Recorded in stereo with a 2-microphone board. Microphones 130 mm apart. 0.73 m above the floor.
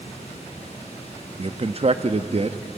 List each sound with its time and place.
0.0 s running water: 55° left (ahead or behind), 6 m
1.4 s a man speaking: 50° right (ahead or behind), 0.7 m